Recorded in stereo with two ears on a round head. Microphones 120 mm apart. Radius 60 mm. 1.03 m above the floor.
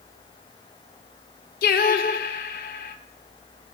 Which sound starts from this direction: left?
Singing, at 1.6 s.